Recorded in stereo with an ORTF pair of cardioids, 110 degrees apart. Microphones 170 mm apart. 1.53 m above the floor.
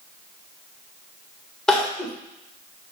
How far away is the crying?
About 1.5 m.